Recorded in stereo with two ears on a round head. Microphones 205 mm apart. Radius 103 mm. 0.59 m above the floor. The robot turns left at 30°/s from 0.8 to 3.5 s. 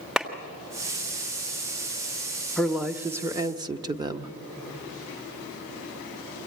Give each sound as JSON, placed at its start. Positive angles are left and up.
{"t": 0.2, "sound": "a clap", "side_deg": -5, "distance_m": 1.4}
{"t": 2.6, "sound": "a woman speaking", "side_deg": 0, "distance_m": 0.8}